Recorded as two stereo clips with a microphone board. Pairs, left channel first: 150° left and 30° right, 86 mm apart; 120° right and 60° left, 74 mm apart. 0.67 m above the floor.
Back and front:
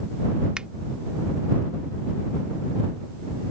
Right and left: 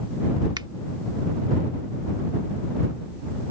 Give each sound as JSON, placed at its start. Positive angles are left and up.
{"t": 0.6, "sound": "a finger snap", "azimuth_deg": 50}